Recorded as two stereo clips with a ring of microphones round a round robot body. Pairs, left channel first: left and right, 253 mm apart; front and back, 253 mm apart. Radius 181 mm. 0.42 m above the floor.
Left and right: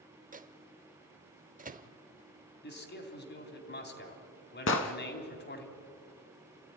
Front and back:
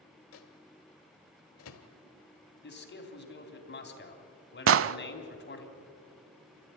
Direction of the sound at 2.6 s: 45° left.